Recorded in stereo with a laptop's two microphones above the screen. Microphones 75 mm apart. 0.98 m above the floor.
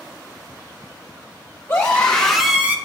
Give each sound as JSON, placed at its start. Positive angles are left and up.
{"t": 1.7, "sound": "a scream", "side_deg": 20, "distance_m": 1.5}